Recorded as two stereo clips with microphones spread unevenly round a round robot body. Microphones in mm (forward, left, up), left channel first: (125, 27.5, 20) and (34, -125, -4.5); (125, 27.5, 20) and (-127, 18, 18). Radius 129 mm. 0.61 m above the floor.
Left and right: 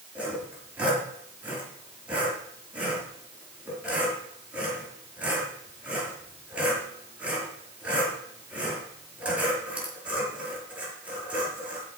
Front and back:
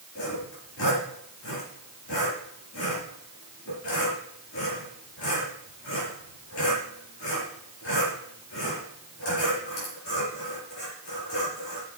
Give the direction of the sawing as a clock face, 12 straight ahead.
1 o'clock.